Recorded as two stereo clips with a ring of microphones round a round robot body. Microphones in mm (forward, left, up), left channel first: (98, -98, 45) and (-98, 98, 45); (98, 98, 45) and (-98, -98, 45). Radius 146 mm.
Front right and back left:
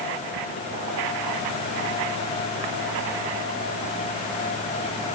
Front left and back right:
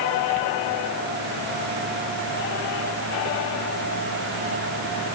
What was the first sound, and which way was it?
Only background noise.